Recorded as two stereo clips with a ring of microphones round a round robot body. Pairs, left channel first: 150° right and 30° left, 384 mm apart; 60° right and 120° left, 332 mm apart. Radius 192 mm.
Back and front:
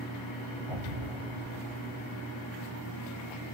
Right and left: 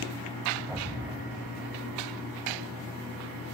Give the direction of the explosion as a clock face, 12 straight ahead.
11 o'clock.